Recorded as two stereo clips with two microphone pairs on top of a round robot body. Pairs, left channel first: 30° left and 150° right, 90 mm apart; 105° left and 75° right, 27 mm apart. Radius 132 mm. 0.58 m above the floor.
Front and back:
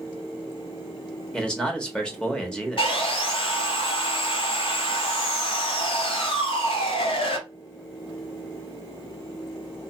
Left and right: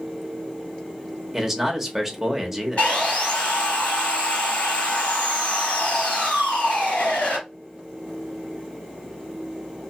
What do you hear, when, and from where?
1.3 s a man speaking: 15° right, 1.2 m
2.8 s sawing: 60° left, 1.8 m